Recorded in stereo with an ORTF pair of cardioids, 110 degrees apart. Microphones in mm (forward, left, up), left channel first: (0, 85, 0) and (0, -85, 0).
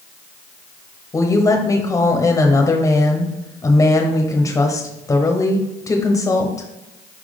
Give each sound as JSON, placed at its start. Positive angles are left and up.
{"t": 1.1, "sound": "a woman speaking", "azimuth_deg": 20, "distance_m": 1.0}